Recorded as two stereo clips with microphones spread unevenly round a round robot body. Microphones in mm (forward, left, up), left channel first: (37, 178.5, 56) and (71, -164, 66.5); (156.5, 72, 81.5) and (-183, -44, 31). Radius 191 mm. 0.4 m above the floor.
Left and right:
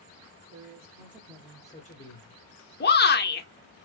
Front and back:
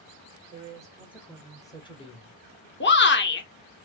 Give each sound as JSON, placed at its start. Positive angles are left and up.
{"t": 0.5, "sound": "a man speaking", "azimuth_deg": -95, "distance_m": 1.2}
{"t": 2.8, "sound": "a shout", "azimuth_deg": 70, "distance_m": 1.0}